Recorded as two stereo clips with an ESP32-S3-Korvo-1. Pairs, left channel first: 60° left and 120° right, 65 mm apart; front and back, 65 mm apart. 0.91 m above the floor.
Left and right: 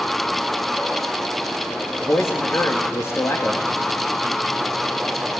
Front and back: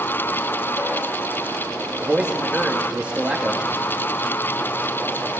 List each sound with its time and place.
2.0 s a man speaking: 110° left, 1.4 m